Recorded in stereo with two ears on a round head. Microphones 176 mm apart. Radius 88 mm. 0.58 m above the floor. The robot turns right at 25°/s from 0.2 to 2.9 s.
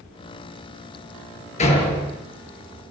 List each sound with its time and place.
1.6 s a door slam: 35° left (ahead or behind), 8.5 m; by 2.2 s 20° left (ahead or behind), 8.5 m